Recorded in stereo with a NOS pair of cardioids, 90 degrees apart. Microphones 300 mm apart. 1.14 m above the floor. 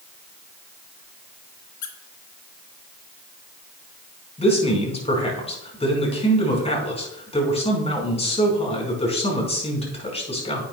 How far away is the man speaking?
About 5 m.